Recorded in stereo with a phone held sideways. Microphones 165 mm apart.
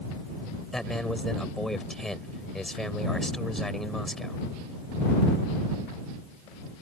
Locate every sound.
0.7 s a man speaking: centre (ahead or behind)